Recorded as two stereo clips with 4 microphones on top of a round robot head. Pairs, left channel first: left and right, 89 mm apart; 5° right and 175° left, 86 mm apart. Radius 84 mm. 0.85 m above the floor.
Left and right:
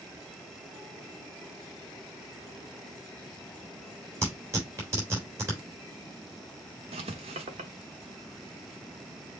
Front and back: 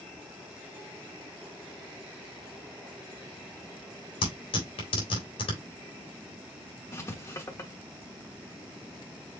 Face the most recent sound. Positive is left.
turn(degrees=-70)